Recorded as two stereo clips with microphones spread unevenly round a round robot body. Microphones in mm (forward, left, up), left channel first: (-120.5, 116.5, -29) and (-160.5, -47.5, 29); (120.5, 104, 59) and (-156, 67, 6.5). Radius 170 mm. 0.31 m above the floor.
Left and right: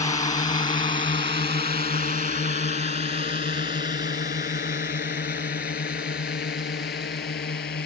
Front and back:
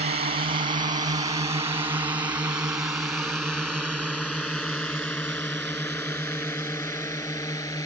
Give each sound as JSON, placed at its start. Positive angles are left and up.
{"t": 0.0, "sound": "a drone", "azimuth_deg": 130}